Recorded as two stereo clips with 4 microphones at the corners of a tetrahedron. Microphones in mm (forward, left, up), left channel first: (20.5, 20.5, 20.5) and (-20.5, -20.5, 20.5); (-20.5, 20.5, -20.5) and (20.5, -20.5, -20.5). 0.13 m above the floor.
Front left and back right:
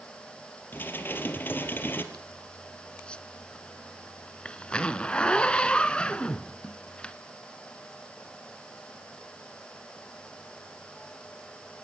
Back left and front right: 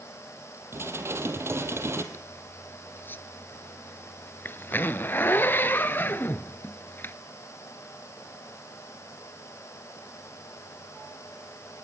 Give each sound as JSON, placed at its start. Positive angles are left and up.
{"t": 0.7, "sound": "dishes clattering", "azimuth_deg": -5, "distance_m": 2.0}
{"t": 2.1, "sound": "a zipper", "azimuth_deg": 110, "distance_m": 0.9}